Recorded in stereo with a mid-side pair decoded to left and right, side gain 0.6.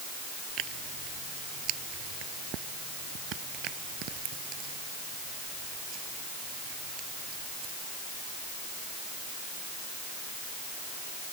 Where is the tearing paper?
60° right.